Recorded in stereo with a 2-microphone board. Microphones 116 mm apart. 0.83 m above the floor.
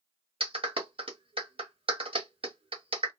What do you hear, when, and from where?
0.4 s a clap: 50° right (ahead or behind), 1.1 m